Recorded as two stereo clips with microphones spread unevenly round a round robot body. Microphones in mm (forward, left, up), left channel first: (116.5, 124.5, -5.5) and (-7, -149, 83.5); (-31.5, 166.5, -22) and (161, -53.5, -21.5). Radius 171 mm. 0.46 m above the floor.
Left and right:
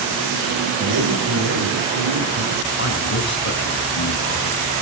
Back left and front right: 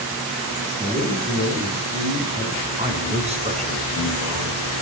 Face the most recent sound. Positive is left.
turn(degrees=20)